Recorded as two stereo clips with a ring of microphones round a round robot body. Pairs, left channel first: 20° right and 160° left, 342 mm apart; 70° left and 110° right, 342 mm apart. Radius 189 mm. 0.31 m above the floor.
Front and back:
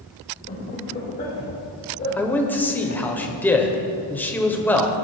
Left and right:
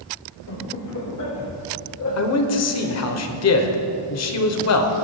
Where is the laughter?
40° left, 2.5 m; by 3.0 s 30° left, 3.5 m.